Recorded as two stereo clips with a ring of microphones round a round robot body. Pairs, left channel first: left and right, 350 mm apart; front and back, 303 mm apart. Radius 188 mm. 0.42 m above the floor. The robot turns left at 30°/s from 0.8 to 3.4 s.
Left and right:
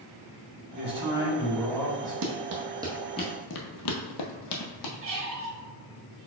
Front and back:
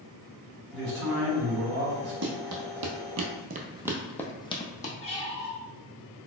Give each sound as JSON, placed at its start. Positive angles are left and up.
{"t": 0.7, "sound": "a man speaking", "azimuth_deg": -155, "distance_m": 1.6}
{"t": 2.2, "sound": "running footsteps", "azimuth_deg": -130, "distance_m": 0.9}
{"t": 5.0, "sound": "a squeak", "azimuth_deg": -60, "distance_m": 0.9}